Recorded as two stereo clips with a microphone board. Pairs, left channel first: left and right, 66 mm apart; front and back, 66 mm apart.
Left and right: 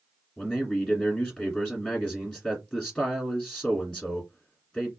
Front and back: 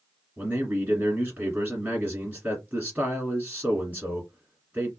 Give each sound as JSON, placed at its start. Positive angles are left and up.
{"t": 0.4, "sound": "a man speaking", "azimuth_deg": 150, "distance_m": 1.6}